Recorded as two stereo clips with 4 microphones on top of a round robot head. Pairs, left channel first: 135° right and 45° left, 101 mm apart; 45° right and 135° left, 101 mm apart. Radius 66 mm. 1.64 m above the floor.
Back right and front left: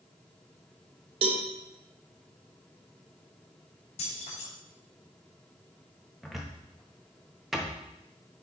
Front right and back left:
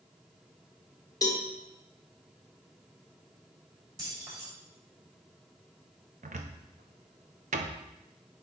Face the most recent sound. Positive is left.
turn(degrees=130)